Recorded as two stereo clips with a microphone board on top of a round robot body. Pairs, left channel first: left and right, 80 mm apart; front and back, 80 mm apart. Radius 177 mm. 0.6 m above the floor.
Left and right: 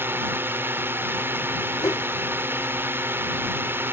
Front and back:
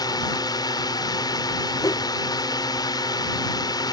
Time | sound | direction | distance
0.0 | a drone | 30° right | ?
1.8 | a whoosh | 45° left | ?